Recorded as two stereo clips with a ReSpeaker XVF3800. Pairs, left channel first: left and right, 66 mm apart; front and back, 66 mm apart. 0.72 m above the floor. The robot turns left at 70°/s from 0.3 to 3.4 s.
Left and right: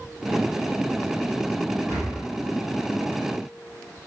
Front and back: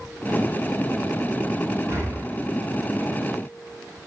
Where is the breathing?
135° right, 4 m; by 2.2 s 160° right, 4 m.